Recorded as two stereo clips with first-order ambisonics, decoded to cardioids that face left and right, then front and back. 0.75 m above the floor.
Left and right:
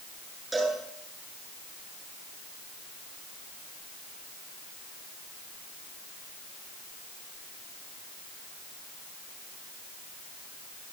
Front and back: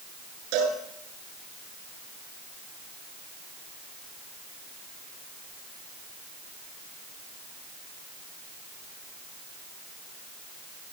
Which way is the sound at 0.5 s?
165° right.